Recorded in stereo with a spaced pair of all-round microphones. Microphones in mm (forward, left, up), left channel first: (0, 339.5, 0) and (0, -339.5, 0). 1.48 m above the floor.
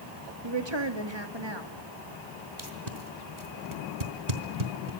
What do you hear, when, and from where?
0.4 s a woman speaking: 40° right (ahead or behind), 2.5 m
2.6 s tape being pulled: 70° right (ahead or behind), 3.5 m